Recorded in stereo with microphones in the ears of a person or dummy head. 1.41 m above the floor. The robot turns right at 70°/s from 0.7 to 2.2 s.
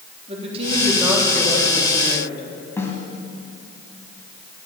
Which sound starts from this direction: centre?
A snare drum, at 2.8 s.